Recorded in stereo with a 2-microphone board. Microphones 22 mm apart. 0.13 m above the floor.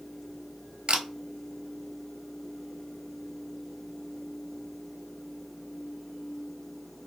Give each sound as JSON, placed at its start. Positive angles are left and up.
{"t": 0.9, "sound": "a camera shutter", "side_deg": -55, "distance_m": 0.7}